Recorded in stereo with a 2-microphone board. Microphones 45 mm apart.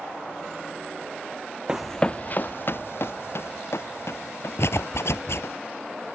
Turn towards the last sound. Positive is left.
turn(degrees=75)  # may be behind; listen again after turning